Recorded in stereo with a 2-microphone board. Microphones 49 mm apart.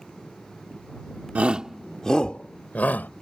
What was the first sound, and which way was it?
A shout, 30° right (ahead or behind).